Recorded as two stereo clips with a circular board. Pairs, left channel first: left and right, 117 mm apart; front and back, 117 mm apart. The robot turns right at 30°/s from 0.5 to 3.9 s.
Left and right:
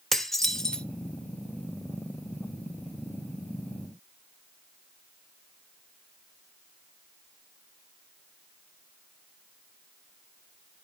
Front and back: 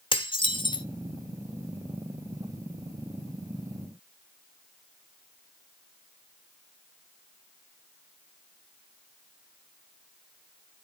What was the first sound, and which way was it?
Dishes clattering, 5° left.